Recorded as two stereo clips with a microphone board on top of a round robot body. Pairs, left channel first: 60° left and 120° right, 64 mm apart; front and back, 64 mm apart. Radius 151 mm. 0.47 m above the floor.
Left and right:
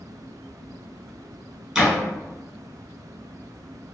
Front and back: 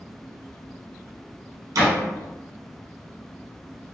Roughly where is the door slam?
Behind.